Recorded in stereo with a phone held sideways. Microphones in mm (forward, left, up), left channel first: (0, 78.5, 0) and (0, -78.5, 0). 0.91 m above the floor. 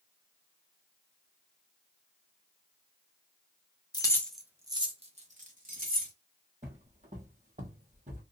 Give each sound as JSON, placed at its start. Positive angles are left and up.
{"t": 3.9, "sound": "keys jangling", "side_deg": 25, "distance_m": 0.6}
{"t": 6.6, "sound": "footsteps", "side_deg": -45, "distance_m": 1.5}